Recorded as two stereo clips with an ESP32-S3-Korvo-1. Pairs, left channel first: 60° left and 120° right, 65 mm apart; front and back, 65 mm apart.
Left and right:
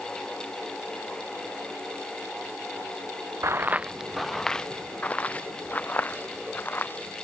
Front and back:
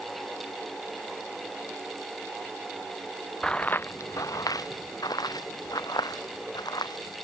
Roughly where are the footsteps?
Right.